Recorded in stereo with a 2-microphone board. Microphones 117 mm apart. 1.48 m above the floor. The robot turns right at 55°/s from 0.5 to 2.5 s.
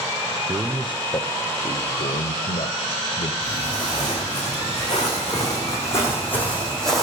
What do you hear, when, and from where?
0.5 s a man speaking: 10° right, 0.6 m; by 3.3 s 100° left, 0.6 m
3.4 s footsteps: 45° left (ahead or behind), 7 m; by 7.0 s centre (ahead or behind), 3.5 m